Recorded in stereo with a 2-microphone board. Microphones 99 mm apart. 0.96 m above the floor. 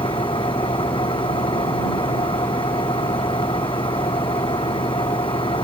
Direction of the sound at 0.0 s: 60° left (ahead or behind).